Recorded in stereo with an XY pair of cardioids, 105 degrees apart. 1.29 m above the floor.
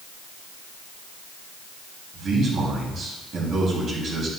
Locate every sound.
2.1 s a man speaking: 60° right, 3 m